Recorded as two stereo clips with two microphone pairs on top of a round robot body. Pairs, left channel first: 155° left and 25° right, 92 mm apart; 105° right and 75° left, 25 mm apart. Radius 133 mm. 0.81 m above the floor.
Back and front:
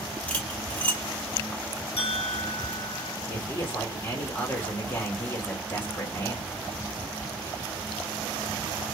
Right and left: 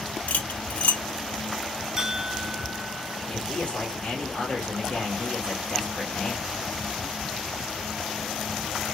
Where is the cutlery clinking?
130° right, 0.8 m.